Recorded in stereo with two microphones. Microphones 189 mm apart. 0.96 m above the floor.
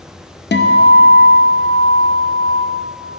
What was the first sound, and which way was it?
A guitar, 60° left (ahead or behind).